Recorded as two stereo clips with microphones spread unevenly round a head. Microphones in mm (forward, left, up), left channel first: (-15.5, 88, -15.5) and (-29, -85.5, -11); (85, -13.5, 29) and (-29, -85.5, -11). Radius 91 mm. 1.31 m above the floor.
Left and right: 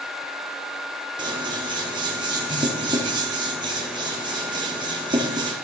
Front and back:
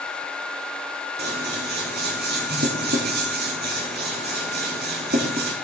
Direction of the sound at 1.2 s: 160° right.